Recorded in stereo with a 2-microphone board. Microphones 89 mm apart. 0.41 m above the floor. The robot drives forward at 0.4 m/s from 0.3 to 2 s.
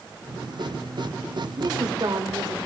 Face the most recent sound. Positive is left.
turn(degrees=-50)  # may be behind; listen again after turning